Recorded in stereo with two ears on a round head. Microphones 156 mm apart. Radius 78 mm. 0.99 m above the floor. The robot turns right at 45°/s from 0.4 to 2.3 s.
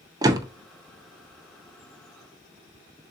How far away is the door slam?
About 0.6 m.